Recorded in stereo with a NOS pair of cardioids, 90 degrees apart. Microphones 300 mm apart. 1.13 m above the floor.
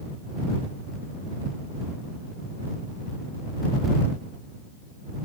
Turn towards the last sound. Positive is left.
No sound to turn to.